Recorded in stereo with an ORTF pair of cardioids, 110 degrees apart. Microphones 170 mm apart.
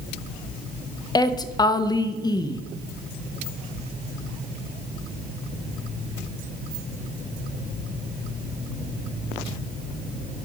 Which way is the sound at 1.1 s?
20° left.